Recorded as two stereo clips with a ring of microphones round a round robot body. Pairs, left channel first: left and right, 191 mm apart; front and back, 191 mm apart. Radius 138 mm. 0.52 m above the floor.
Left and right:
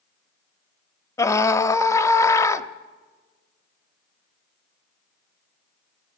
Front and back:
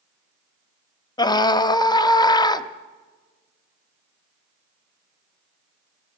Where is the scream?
35° left, 0.8 m.